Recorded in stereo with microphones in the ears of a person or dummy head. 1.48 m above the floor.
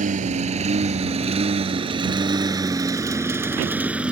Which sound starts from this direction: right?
A lawn mower, at 0.0 s.